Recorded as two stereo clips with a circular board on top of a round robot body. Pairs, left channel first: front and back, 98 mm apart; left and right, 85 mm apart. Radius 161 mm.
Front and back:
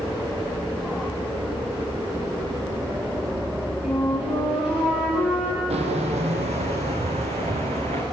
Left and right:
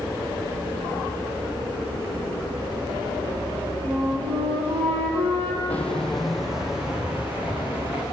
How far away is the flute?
About 6 m.